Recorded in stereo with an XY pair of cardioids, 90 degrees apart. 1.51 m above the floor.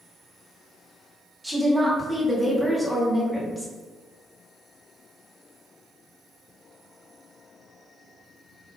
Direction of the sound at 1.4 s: 10° right.